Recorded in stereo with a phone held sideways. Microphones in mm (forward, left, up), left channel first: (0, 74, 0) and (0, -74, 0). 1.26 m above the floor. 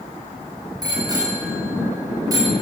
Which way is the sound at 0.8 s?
30° right (ahead or behind).